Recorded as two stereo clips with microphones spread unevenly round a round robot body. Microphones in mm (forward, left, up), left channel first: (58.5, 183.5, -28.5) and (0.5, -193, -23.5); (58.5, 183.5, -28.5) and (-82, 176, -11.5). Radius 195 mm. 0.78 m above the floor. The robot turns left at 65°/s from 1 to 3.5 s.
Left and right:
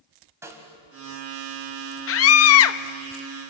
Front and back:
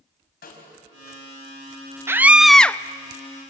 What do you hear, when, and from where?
0.4 s a snare drum: 15° right, 3.5 m
2.1 s a scream: 110° left, 0.5 m; by 2.8 s 65° left, 0.5 m